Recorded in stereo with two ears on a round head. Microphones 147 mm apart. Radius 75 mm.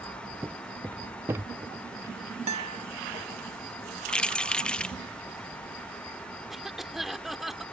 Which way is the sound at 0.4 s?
10° right (ahead or behind).